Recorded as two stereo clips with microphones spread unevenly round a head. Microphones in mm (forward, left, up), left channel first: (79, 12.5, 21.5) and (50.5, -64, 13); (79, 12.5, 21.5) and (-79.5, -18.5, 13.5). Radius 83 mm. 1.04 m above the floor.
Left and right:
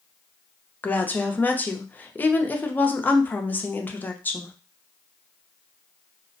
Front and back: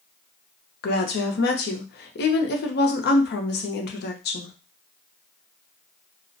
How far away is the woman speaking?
About 0.6 m.